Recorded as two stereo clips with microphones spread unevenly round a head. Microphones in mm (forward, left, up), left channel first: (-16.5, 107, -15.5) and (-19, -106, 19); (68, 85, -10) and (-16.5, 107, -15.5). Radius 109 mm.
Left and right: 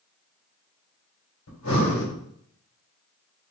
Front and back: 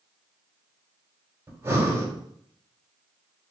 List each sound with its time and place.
1.5 s breathing: 105° left, 2 m